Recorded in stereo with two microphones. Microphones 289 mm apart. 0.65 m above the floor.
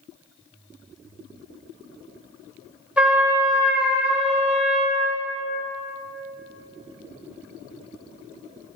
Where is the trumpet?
5° right (ahead or behind), 2.0 m.